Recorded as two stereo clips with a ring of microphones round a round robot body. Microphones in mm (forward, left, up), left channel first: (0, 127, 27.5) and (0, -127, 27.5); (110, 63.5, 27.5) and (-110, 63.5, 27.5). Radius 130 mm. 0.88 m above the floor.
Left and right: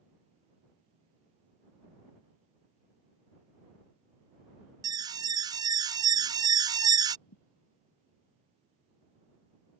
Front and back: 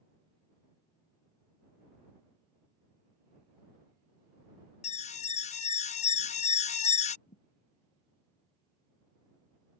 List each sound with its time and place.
4.8 s an alarm: 25° right
7.3 s a thud: 60° left